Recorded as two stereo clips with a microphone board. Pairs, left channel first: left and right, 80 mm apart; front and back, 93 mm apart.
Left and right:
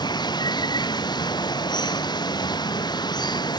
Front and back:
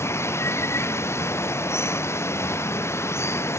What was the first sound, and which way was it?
Running water, 60° left.